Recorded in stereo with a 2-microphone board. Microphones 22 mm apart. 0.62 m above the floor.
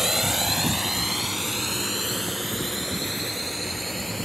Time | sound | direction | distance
0.0 | a drone | 15° right (ahead or behind) | ?